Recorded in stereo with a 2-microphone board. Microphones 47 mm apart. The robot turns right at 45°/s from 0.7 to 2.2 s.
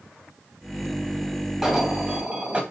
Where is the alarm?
5° right (ahead or behind), 2.5 m; by 2.6 s 25° right (ahead or behind), 2.5 m.